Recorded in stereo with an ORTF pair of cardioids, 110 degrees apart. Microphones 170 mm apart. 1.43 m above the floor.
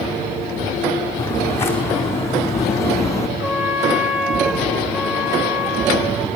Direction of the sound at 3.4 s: 10° right.